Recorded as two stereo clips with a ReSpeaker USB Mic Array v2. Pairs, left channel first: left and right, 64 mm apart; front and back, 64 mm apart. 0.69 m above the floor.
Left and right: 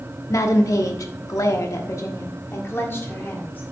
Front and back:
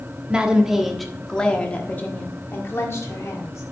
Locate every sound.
0.3 s a woman speaking: 110° left, 1.1 m; by 3.6 s 35° left, 1.7 m